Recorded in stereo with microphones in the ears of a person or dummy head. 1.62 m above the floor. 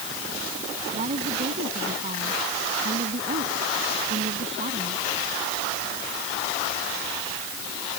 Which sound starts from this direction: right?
A woman speaking, at 0.9 s.